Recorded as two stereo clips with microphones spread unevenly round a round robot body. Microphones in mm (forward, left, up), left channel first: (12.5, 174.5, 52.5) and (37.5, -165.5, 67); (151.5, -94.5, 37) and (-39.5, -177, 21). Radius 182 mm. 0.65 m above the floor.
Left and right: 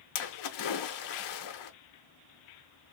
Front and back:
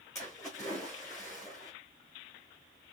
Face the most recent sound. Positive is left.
turn(degrees=105)